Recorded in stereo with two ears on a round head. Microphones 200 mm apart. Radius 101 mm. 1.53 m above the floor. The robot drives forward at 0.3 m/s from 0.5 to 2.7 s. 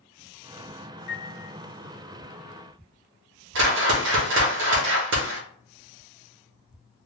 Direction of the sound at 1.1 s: 30° left (ahead or behind).